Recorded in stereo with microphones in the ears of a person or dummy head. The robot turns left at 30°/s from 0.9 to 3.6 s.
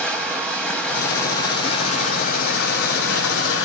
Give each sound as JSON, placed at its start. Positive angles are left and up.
{"t": 0.0, "sound": "running water", "azimuth_deg": 175, "distance_m": 1.3}